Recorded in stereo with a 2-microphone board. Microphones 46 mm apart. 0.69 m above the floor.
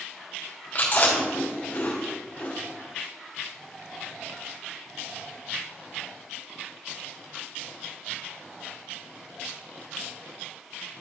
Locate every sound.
0.8 s chewing: 40° left (ahead or behind), 2.5 m